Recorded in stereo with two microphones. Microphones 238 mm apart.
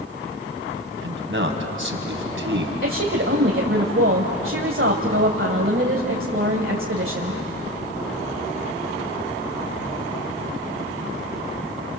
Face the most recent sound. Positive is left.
turn(degrees=-55)  # may be behind; listen again after turning